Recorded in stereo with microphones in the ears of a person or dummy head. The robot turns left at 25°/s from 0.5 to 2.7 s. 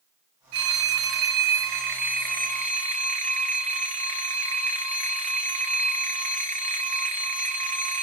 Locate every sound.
0.5 s a phone ringing: 90° right, 1.0 m; by 8.0 s 145° right, 1.0 m